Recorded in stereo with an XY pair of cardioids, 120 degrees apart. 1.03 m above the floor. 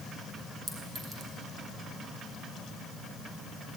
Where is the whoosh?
No whoosh in this recording.